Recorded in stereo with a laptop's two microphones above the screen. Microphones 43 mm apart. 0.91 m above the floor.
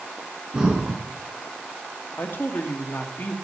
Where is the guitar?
No guitar in this recording.